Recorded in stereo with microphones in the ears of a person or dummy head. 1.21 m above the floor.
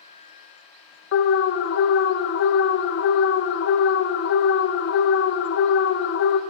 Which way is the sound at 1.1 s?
60° left (ahead or behind).